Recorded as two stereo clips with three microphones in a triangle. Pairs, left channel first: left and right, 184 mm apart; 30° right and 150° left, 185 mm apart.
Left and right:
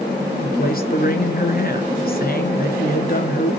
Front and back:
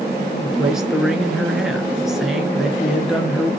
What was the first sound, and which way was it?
A man speaking, 65° left.